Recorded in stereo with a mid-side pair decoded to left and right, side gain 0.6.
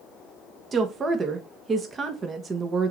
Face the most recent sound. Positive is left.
turn(degrees=-35)